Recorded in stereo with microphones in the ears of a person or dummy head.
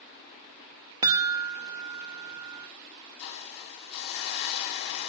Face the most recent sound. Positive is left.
turn(degrees=60)  # may be behind; listen again after turning